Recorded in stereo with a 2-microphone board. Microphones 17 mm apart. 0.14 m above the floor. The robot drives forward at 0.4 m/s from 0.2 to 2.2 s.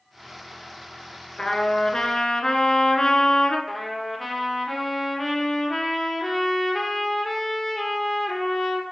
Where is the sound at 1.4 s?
30° left (ahead or behind), 1.0 m; by 3.6 s 40° left (ahead or behind), 0.8 m.